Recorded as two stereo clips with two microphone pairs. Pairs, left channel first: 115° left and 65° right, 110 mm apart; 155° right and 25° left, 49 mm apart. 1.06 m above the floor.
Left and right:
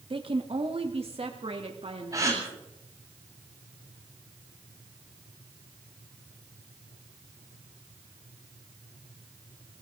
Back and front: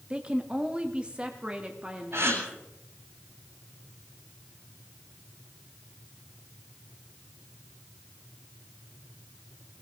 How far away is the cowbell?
No cowbell in this recording.